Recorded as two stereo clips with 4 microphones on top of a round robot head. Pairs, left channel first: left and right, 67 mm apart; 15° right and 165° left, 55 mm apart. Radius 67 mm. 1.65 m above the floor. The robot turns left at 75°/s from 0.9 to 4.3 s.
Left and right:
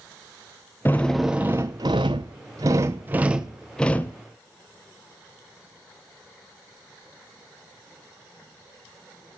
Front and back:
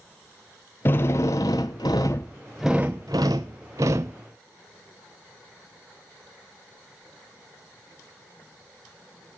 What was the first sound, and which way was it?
A drill, 20° left.